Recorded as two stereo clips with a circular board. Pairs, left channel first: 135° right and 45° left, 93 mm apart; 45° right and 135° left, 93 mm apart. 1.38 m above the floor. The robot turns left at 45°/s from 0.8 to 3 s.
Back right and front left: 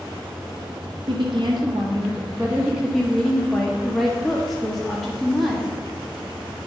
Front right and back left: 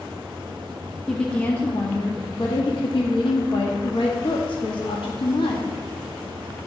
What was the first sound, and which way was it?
A woman speaking, 40° left.